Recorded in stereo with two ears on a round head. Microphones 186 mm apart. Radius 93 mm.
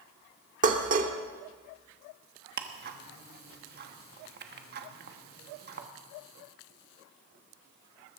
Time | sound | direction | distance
0.6 | dishes clattering | 40° right (ahead or behind) | 1.3 m
2.6 | ticking | 50° right (ahead or behind) | 1.2 m